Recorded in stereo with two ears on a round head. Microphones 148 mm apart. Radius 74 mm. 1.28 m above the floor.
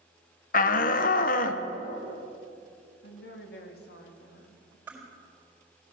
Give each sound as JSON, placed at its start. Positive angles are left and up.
{"t": 0.5, "sound": "a shout", "side_deg": 50, "distance_m": 1.0}
{"t": 3.0, "sound": "a woman speaking", "side_deg": 70, "distance_m": 1.9}
{"t": 4.9, "sound": "crushing", "side_deg": -10, "distance_m": 4.0}